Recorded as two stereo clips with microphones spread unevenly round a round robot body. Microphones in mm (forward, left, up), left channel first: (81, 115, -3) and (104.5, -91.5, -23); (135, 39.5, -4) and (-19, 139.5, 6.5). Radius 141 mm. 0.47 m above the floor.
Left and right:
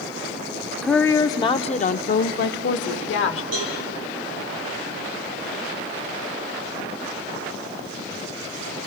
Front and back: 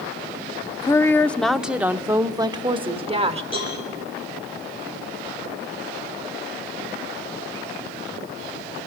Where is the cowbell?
105° right, 8 m.